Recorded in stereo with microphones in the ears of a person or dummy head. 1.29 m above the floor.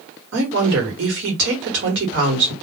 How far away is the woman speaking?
About 1.1 m.